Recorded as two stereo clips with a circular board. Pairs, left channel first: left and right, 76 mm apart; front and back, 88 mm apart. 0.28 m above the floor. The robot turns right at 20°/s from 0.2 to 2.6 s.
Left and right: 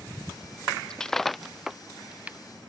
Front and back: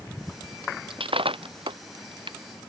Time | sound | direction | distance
0.9 | breaking glass | 170° left | ?